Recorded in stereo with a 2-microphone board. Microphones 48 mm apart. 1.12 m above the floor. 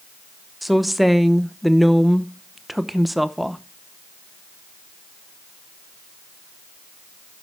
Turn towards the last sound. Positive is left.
turn(degrees=0)  # may be behind; listen again after turning